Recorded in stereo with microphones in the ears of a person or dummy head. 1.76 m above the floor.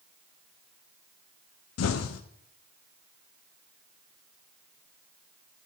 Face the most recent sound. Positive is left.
turn(degrees=70)  # may be behind; listen again after turning